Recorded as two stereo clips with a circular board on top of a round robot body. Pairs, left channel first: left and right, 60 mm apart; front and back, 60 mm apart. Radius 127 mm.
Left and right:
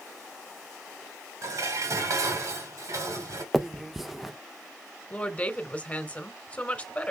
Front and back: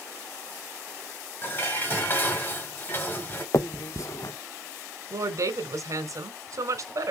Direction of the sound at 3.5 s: 5° right.